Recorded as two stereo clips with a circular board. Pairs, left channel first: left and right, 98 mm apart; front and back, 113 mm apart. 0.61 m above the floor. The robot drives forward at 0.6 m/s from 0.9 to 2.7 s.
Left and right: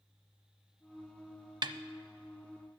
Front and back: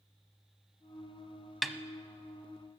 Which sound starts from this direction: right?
A snare drum, at 1.6 s.